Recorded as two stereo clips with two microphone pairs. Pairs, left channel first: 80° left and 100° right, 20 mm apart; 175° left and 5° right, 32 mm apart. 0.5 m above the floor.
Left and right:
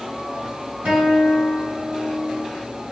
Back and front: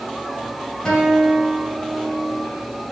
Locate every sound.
0.8 s a guitar: 115° right, 3.5 m